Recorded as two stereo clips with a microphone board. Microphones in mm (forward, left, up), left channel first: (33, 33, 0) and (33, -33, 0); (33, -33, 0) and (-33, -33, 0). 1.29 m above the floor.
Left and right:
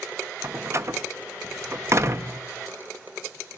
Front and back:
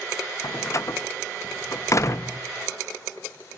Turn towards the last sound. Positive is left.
turn(degrees=-45)